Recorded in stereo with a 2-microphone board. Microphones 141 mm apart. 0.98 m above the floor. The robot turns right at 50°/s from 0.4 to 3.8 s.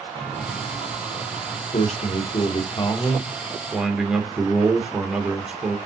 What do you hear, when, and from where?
0.1 s a chime: 10° left, 4 m; by 1.6 s 70° left, 4 m
1.7 s a man speaking: 85° left, 1.2 m; by 5.8 s 170° right, 1.2 m